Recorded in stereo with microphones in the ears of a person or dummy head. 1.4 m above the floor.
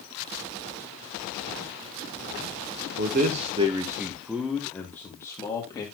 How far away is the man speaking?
About 1.1 m.